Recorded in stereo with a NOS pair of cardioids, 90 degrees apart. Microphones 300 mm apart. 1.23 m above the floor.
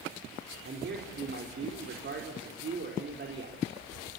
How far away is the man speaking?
About 4.5 m.